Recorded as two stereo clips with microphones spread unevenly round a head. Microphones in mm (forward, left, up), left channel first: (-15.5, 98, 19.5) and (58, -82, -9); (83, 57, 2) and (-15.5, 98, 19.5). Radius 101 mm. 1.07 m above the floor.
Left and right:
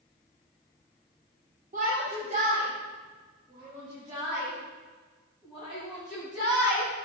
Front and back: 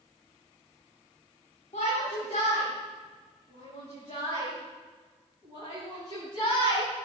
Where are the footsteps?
No footsteps in this recording.